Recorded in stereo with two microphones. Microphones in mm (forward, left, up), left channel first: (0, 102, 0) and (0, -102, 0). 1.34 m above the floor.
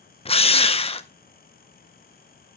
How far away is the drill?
About 0.7 m.